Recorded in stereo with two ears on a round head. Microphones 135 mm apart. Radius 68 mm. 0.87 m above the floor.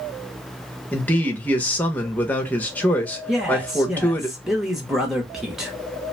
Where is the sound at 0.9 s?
10° left (ahead or behind), 0.7 m.